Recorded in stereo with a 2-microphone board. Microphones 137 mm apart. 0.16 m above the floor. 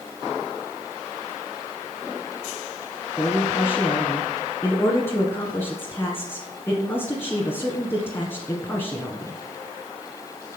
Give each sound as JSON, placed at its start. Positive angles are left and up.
{"t": 3.2, "sound": "a man speaking", "side_deg": 20, "distance_m": 1.4}